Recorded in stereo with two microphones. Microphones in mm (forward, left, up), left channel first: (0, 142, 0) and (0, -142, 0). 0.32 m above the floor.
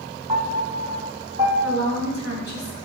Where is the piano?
20° right (ahead or behind), 3 m.